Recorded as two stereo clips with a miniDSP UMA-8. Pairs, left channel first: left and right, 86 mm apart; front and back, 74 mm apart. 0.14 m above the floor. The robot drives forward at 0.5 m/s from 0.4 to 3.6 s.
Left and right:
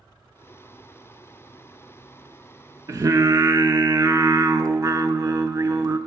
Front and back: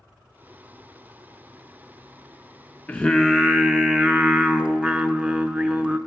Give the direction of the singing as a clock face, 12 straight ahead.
2 o'clock.